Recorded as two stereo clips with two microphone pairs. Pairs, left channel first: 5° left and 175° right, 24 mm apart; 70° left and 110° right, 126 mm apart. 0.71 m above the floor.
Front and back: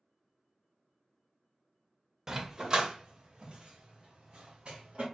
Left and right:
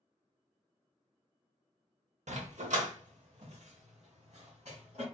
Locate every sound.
2.3 s a dog barking: 105° right, 0.6 m; by 5.0 s 135° right, 2.0 m